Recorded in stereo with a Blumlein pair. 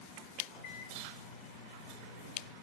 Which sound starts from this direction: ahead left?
A microwave, at 0.5 s.